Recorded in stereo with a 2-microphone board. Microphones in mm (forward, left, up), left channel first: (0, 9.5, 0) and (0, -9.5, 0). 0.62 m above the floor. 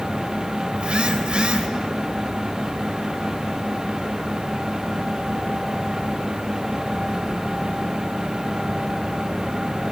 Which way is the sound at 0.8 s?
65° right (ahead or behind).